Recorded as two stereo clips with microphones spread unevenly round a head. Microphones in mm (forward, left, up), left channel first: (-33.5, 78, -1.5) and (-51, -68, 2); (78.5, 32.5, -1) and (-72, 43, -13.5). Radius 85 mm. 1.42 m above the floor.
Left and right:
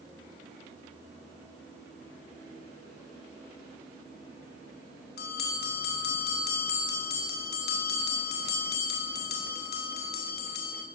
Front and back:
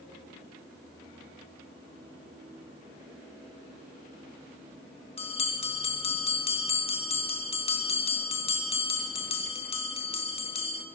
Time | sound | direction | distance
5.2 | a bell | 45° left | 1.6 m